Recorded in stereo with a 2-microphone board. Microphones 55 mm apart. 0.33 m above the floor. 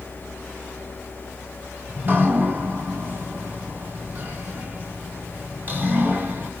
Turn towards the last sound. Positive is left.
turn(degrees=-35)  # may be behind; listen again after turning